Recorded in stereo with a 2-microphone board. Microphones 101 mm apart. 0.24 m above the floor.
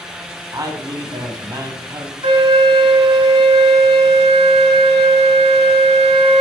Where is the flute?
65° right (ahead or behind), 0.6 m.